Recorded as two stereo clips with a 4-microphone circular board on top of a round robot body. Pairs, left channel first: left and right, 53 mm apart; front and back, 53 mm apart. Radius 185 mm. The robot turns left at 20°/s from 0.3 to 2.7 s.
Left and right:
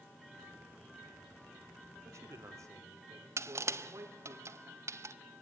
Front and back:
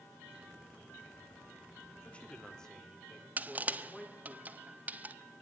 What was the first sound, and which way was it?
A man speaking, 65° right.